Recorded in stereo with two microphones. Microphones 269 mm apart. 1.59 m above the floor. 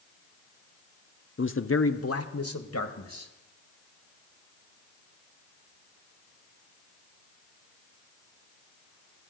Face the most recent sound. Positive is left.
turn(degrees=65)  # may be behind; listen again after turning